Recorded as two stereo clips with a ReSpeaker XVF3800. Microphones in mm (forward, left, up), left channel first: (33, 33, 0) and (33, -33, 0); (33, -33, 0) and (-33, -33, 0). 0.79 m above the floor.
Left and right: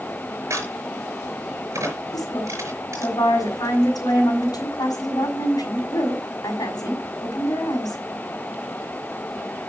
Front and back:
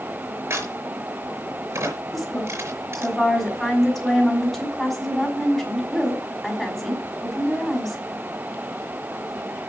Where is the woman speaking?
85° left, 5 m.